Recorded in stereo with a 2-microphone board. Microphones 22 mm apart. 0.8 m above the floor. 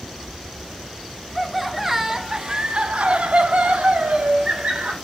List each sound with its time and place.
1.4 s laughter: centre (ahead or behind), 1.7 m; by 5.0 s 70° right (ahead or behind), 2.5 m